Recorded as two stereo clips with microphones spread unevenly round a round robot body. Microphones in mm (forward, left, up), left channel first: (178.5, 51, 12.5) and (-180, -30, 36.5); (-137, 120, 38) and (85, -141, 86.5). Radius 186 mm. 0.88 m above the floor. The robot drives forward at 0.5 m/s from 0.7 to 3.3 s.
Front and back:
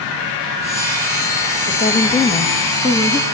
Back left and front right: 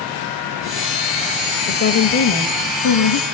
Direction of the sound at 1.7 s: 85° left.